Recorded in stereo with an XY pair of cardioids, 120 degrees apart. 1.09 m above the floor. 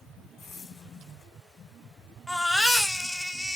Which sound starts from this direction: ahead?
A baby crying, at 2.3 s.